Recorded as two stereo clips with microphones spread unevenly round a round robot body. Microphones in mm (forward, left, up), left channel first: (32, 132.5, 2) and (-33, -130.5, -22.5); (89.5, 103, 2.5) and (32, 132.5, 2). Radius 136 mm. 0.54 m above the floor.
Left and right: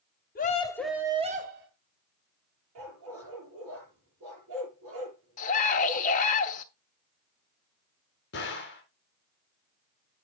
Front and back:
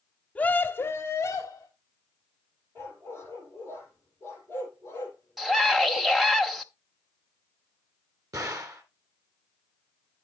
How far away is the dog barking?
About 6.5 m.